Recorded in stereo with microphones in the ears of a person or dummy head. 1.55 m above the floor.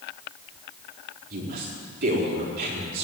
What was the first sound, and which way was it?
A woman speaking, 55° right (ahead or behind).